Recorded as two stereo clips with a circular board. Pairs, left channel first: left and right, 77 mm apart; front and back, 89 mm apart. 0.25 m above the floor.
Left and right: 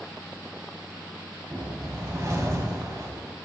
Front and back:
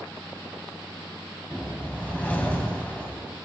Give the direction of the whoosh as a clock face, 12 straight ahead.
2 o'clock.